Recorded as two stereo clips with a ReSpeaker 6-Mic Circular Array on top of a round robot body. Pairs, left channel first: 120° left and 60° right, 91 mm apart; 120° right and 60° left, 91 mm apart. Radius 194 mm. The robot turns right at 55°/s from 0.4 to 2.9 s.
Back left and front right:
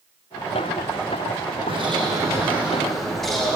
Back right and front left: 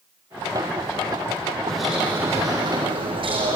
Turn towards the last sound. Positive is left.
turn(degrees=30)